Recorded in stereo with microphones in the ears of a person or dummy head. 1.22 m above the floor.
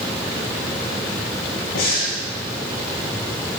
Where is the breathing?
85° left, 5 m.